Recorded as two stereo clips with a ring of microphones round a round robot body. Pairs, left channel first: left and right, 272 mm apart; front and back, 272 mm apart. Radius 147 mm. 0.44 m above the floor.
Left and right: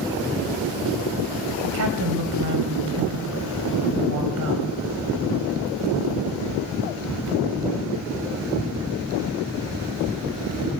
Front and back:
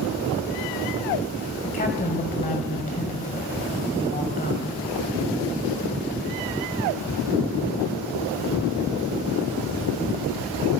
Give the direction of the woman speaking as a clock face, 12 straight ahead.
2 o'clock.